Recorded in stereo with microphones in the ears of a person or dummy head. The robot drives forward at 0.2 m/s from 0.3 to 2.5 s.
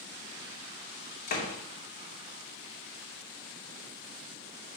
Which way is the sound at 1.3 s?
45° left (ahead or behind).